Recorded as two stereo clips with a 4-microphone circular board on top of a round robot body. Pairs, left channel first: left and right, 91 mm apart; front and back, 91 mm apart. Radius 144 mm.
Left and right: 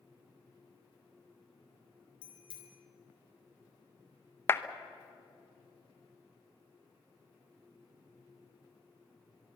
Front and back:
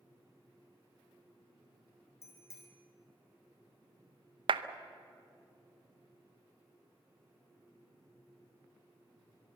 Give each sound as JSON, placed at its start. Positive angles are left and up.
{"t": 2.2, "sound": "a bicycle bell", "azimuth_deg": 60, "distance_m": 3.0}
{"t": 4.5, "sound": "a clap", "azimuth_deg": 155, "distance_m": 0.8}